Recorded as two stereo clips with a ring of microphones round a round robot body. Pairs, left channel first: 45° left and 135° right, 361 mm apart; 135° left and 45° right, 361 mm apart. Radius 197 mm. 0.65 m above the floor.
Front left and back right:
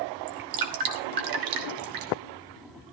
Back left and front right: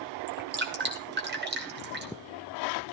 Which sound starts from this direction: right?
Dripping, at 0.3 s.